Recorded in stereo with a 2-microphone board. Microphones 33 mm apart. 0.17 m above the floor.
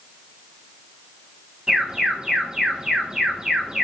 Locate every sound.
1.7 s an alarm: 20° right (ahead or behind), 4 m